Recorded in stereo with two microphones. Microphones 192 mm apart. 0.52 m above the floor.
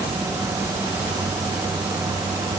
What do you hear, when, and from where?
Only background noise.